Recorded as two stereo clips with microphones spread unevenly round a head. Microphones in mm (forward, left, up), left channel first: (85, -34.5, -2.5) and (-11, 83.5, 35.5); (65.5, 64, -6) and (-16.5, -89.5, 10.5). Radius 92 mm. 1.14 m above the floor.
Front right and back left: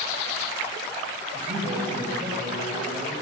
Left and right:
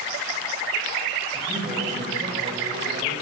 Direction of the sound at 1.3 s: Straight behind.